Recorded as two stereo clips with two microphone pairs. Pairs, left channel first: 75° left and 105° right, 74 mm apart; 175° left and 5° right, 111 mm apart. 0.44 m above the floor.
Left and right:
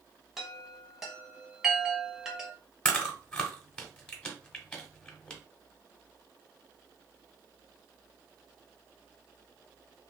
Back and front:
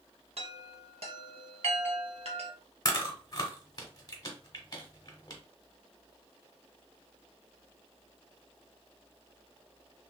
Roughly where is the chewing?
Behind left.